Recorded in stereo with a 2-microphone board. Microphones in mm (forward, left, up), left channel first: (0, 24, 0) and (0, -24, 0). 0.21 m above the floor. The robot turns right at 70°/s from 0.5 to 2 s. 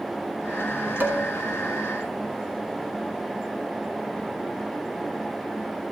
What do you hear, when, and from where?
1.0 s dishes clattering: 40° right (ahead or behind), 1.5 m; by 1.2 s 50° right (ahead or behind), 1.5 m